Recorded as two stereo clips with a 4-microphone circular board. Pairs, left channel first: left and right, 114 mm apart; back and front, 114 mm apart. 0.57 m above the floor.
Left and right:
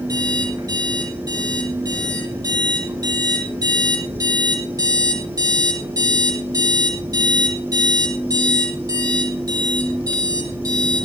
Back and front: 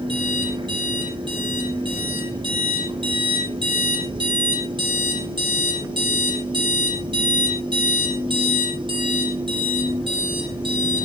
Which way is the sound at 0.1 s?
35° right.